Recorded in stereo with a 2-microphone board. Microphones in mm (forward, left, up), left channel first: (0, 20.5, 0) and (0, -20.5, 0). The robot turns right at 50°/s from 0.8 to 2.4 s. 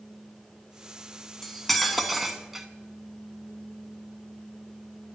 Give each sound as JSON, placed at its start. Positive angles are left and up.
{"t": 1.4, "sound": "cutlery clinking", "side_deg": 5, "distance_m": 0.6}